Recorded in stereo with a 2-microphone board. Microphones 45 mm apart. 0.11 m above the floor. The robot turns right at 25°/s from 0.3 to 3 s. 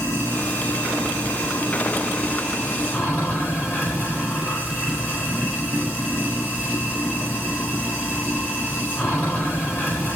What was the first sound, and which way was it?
Running water, 70° left.